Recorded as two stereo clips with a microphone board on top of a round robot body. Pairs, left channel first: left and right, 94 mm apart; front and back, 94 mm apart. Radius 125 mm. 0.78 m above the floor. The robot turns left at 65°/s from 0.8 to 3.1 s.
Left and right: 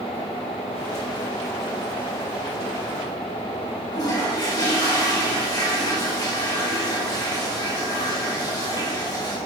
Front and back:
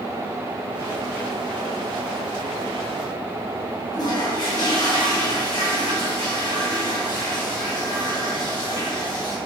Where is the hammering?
I don't hear hammering.